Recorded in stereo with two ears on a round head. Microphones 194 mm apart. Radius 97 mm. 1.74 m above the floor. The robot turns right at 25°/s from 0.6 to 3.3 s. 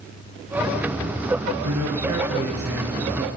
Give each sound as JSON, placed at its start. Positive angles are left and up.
{"t": 1.6, "sound": "a man speaking", "azimuth_deg": -90, "distance_m": 1.0}